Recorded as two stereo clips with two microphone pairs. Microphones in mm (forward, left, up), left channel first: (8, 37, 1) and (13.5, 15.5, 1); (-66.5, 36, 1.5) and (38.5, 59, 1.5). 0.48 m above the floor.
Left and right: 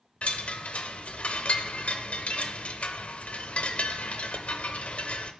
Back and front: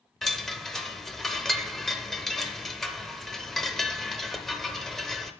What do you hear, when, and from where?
0.2 s a chime: 105° left, 0.7 m